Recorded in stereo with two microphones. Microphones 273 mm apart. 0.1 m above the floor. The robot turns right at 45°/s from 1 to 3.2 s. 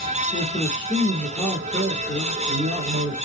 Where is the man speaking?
160° left, 3 m; by 3.1 s 100° right, 3 m.